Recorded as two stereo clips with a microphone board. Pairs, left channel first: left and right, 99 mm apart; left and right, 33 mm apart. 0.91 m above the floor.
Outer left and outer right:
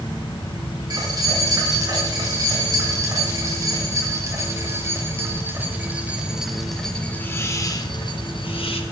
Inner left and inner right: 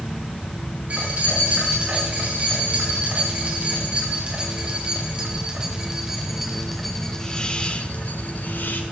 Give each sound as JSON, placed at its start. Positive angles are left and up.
{"t": 0.9, "sound": "keys jangling", "side_deg": -45, "distance_m": 6.5}